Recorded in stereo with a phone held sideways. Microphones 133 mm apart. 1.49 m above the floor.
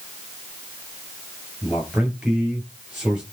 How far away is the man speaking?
About 8 m.